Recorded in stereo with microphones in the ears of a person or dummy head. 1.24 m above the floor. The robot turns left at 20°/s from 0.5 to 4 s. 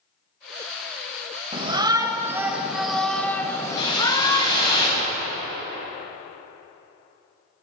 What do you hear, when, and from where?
1.5 s a shout: 155° right, 0.9 m; by 4.8 s 155° left, 0.9 m
3.8 s a whoosh: 30° left (ahead or behind), 4.5 m; by 5.1 s 25° left (ahead or behind), 4.5 m